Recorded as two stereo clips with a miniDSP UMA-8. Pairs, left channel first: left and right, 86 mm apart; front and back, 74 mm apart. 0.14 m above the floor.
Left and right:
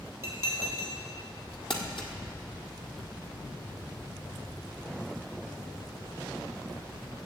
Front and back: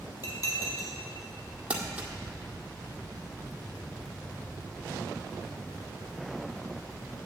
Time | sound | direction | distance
0.2 | dishes clattering | 30° right | 2.5 m
1.7 | crumpling | 105° left | 1.4 m